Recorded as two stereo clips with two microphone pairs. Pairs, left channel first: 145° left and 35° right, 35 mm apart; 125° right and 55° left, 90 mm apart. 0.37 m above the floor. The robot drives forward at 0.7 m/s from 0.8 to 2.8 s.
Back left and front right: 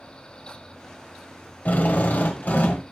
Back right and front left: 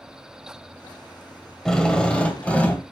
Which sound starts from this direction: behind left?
A drill, at 1.6 s.